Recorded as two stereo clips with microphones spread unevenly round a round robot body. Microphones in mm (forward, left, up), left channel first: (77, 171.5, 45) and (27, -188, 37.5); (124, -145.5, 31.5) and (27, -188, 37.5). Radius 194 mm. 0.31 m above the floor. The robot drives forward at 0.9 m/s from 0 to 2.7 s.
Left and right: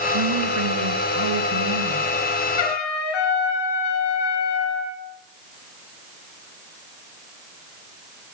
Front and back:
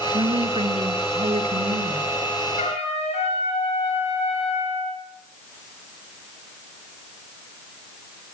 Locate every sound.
0.1 s a woman speaking: 130° right, 4 m; by 2.1 s 145° right, 5.5 m
2.6 s a trumpet: 70° left, 5 m